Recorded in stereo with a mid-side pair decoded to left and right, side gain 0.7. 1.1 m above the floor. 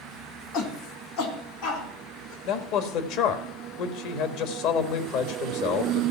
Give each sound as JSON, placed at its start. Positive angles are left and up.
{"t": 0.5, "sound": "a shout", "azimuth_deg": 65, "distance_m": 2.5}
{"t": 2.5, "sound": "a man speaking", "azimuth_deg": 65, "distance_m": 1.5}